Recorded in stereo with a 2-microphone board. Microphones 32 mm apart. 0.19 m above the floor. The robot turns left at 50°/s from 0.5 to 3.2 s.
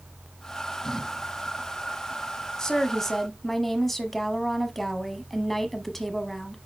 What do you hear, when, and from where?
2.6 s a woman speaking: 20° left (ahead or behind), 1.1 m; by 6.6 s 10° left (ahead or behind), 1.1 m